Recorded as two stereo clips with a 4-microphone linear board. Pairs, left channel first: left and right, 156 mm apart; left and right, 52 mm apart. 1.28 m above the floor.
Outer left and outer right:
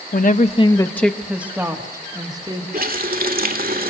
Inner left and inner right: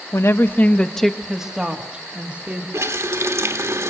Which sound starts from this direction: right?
A running tap, at 2.7 s.